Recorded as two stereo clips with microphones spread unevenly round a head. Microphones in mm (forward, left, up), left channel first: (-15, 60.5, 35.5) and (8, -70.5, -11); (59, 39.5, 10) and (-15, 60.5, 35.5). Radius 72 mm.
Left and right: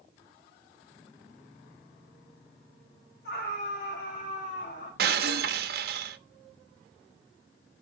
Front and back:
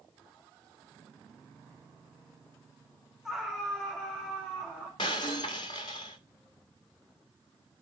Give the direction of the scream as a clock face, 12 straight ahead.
10 o'clock.